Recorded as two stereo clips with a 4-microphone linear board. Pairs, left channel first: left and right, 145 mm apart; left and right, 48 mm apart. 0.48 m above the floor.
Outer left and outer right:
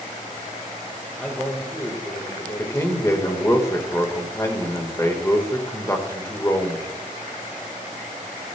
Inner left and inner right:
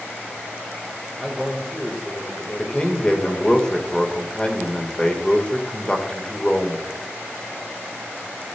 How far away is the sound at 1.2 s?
About 2 m.